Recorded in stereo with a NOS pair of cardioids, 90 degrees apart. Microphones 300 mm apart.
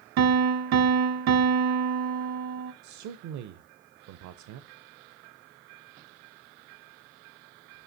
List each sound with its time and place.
0.2 s a piano: 65° right, 0.8 m
2.8 s a man speaking: 70° right, 0.6 m